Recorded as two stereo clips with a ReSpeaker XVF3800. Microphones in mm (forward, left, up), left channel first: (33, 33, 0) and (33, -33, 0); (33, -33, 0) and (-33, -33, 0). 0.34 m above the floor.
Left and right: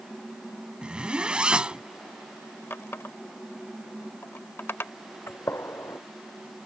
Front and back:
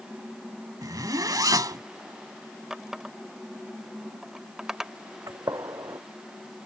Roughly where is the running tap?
Left.